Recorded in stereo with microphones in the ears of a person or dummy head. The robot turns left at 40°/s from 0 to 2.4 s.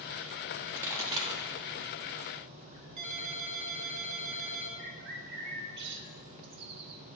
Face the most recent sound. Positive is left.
turn(degrees=-60)  # may be behind; listen again after turning